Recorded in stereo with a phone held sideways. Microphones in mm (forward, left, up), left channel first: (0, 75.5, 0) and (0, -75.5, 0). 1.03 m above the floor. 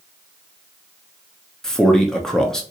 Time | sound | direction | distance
1.6 | a man speaking | 5° left (ahead or behind) | 0.7 m